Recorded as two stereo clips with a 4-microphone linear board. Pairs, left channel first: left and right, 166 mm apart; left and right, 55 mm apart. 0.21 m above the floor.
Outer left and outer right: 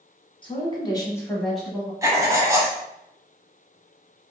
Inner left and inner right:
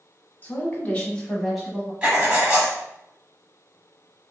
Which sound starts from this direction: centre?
Writing, at 2.0 s.